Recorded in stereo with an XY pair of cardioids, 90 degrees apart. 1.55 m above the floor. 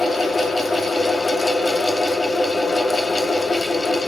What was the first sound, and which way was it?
A fan, 30° left.